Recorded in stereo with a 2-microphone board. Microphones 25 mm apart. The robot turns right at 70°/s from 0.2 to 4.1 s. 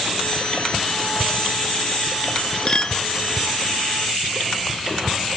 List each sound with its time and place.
2.7 s a clink: 30° left (ahead or behind); by 3.0 s 45° left (ahead or behind)